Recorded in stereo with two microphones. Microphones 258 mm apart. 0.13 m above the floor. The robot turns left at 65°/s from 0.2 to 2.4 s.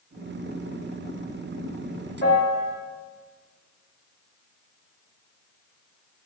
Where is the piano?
40° left (ahead or behind), 2 m; by 2.7 s 25° left (ahead or behind), 2 m.